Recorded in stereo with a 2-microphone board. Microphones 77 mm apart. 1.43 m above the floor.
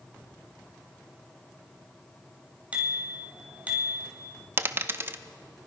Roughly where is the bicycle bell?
Centre.